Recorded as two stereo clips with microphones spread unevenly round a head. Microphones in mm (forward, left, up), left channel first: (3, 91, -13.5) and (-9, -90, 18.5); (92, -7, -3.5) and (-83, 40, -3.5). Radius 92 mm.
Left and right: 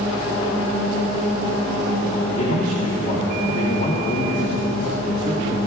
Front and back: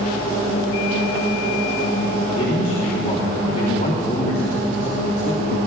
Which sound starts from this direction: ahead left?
A man speaking, at 2.2 s.